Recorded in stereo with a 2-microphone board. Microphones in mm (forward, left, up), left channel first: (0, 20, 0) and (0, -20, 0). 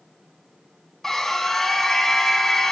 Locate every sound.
1.0 s a scream: 10° left (ahead or behind), 1.7 m